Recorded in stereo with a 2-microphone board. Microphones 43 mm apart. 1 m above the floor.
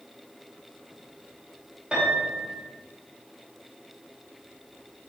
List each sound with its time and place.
1.9 s a piano: 25° right (ahead or behind), 2.5 m